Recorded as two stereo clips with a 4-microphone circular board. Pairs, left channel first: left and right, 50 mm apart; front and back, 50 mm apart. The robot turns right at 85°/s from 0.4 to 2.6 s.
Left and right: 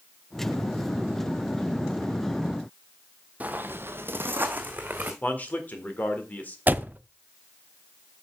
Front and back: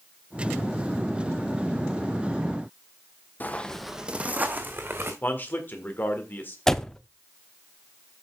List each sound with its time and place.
3.4 s footsteps: 40° right, 0.8 m; by 5.1 s 145° right, 2.0 m
5.2 s a man speaking: 40° left, 1.7 m
6.7 s a door slam: 75° right, 0.5 m